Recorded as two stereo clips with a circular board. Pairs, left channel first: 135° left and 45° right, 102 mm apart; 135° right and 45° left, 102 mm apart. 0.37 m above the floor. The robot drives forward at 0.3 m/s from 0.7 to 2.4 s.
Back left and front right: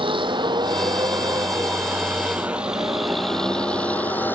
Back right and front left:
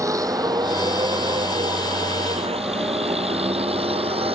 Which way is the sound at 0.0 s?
10° right.